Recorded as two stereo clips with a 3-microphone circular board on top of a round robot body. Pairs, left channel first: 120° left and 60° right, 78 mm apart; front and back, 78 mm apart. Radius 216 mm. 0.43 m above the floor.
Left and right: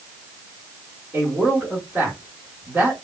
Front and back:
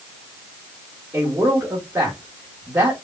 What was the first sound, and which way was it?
A man speaking, 115° right.